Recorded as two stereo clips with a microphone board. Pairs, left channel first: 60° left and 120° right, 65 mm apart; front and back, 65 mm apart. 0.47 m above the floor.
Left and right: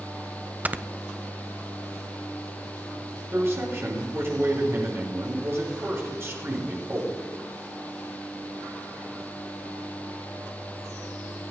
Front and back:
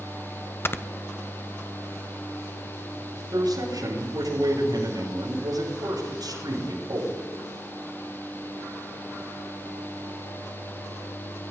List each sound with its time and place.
0.7 s snoring: 55° right, 0.6 m
3.3 s a man speaking: 170° right, 7 m